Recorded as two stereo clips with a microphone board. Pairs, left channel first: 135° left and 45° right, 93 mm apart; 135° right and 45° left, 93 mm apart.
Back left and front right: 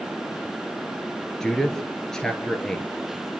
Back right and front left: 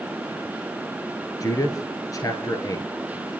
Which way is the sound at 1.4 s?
145° right.